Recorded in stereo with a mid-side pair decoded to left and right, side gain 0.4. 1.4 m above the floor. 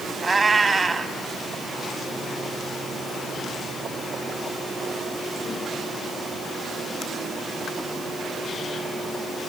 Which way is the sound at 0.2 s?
20° right.